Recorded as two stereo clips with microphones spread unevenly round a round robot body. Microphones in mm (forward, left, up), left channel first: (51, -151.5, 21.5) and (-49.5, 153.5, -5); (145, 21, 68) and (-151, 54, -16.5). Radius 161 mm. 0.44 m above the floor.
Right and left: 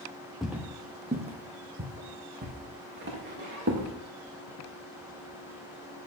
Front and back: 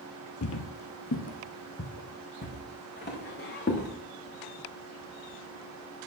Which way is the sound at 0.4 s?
15° left.